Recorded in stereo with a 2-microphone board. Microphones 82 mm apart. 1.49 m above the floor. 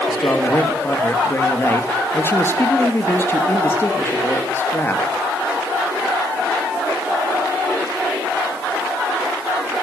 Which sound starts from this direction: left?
A man speaking, at 0.1 s.